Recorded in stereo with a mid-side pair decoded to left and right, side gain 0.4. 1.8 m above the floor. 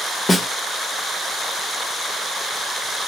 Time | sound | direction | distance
0.3 | a snare drum | 30° left | 1.0 m